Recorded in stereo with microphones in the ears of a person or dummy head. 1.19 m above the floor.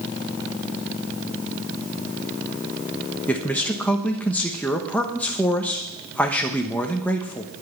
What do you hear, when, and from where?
3.3 s a man speaking: 5° left (ahead or behind), 1.1 m